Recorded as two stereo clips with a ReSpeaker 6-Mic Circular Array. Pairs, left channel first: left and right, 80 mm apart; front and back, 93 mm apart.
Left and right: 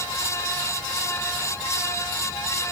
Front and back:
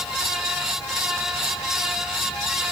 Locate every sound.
Only background noise.